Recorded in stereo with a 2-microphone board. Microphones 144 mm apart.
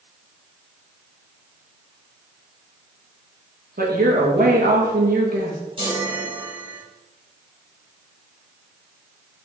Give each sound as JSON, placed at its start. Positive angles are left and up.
{"t": 3.8, "sound": "a woman speaking", "side_deg": -85, "distance_m": 2.5}
{"t": 5.8, "sound": "a chime", "side_deg": -35, "distance_m": 3.5}